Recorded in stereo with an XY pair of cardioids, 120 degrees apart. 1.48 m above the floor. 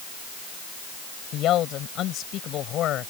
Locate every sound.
1.3 s a man speaking: 65° left